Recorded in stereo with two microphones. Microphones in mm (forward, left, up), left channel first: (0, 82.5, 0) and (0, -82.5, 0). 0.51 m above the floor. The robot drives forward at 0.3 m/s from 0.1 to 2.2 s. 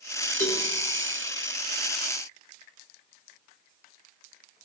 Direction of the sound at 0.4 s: 55° left (ahead or behind).